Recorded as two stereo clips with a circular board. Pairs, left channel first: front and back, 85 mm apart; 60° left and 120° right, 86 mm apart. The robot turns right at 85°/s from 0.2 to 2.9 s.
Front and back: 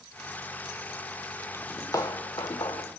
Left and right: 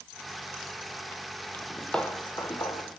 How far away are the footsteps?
About 0.9 m.